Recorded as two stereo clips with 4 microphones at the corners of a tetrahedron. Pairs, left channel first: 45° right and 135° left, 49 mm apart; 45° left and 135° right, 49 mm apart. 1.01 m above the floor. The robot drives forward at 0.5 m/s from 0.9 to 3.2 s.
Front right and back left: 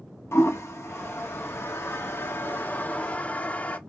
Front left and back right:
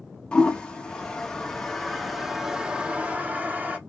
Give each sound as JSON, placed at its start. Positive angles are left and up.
{"t": 0.3, "sound": "a toilet flushing", "azimuth_deg": -25, "distance_m": 1.4}